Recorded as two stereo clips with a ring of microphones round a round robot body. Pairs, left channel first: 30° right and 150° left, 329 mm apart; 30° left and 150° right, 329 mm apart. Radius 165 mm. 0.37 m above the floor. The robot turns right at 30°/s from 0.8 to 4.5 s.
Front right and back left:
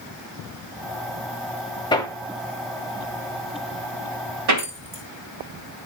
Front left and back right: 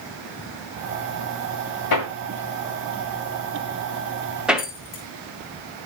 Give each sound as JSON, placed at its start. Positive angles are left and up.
{"t": 1.9, "sound": "hammering", "azimuth_deg": 45, "distance_m": 1.6}
{"t": 4.6, "sound": "keys jangling", "azimuth_deg": 95, "distance_m": 2.0}